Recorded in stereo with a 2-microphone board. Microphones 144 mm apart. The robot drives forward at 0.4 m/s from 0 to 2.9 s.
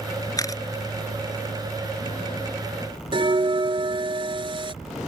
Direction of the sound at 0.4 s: 25° left (ahead or behind).